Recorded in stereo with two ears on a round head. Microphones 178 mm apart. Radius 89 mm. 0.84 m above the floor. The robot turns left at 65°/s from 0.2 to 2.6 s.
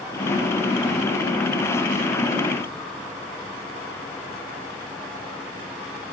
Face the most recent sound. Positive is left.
No sound to turn to.